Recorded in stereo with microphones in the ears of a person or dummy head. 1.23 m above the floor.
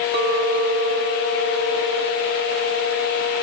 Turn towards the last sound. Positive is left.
turn(degrees=-45)  # may be behind; listen again after turning